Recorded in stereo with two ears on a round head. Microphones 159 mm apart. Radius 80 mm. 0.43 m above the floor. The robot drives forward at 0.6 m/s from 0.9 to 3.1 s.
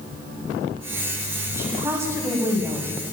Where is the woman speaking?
15° right (ahead or behind), 3.5 m; by 3.0 s 20° right (ahead or behind), 2.5 m.